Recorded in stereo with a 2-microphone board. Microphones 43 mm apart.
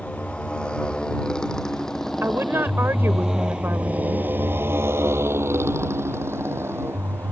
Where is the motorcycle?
30° left (ahead or behind); by 7.3 s 70° right (ahead or behind).